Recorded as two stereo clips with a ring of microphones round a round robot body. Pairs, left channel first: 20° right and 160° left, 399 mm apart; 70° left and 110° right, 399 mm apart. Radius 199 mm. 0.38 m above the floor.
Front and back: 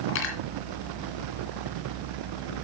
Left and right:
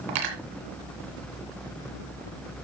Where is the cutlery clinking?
80° right, 2.5 m.